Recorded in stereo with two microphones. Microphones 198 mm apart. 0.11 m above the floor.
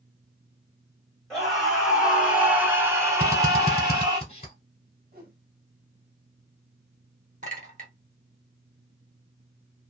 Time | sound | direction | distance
1.3 | a scream | centre (ahead or behind) | 1.6 m
3.2 | a drill | 30° left (ahead or behind) | 1.2 m
5.1 | a whoosh | 50° right (ahead or behind) | 1.9 m
7.4 | a clink | 40° right (ahead or behind) | 1.5 m